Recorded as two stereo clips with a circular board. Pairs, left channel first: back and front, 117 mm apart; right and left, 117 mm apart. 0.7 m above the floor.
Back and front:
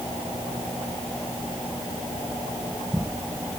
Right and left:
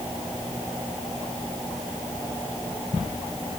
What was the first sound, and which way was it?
Only background noise.